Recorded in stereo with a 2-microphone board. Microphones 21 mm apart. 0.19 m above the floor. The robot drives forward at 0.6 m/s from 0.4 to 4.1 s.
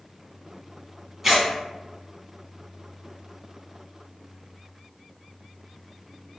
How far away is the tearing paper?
About 1.0 m.